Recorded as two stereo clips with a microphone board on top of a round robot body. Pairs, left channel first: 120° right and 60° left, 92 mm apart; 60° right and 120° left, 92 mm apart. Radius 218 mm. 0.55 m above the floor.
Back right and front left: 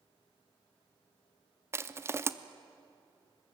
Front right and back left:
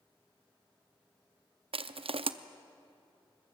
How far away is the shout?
No shout in this recording.